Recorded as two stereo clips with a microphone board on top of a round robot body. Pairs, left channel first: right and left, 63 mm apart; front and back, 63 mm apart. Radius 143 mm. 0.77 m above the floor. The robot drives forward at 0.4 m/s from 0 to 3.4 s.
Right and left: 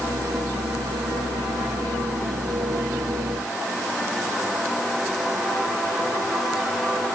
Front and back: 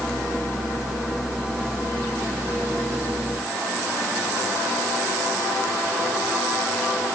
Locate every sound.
Only background noise.